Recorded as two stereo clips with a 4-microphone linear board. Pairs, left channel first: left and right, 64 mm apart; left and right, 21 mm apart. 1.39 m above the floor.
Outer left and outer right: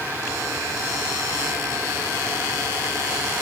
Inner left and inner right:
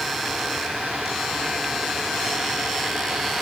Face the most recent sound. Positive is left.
No sound to turn to.